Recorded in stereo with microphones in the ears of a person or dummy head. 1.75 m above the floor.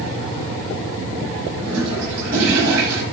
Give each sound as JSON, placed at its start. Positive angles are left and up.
{"t": 1.6, "sound": "a toilet flushing", "side_deg": -70, "distance_m": 6.0}